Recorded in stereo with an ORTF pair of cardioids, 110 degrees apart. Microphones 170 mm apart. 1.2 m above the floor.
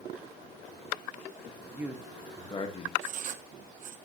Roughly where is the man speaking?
Ahead.